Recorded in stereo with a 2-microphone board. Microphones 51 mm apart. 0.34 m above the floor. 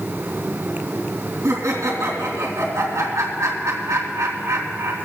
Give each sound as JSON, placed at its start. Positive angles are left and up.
{"t": 1.4, "sound": "laughter", "side_deg": -70, "distance_m": 2.5}